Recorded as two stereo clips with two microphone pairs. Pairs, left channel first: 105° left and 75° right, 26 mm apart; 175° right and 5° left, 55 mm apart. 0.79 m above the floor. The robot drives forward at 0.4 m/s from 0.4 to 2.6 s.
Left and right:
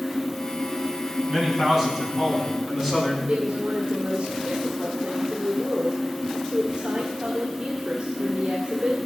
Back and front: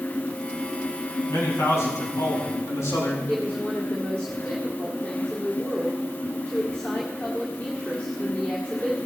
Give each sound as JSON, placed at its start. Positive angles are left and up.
{"t": 1.3, "sound": "a man speaking", "azimuth_deg": -145, "distance_m": 6.0}
{"t": 3.3, "sound": "a woman speaking", "azimuth_deg": -105, "distance_m": 1.7}